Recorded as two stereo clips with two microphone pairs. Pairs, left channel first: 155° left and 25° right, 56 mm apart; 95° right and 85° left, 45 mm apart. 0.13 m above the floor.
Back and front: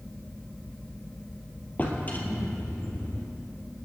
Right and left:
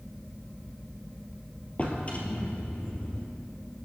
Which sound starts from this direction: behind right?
A drawer, at 1.8 s.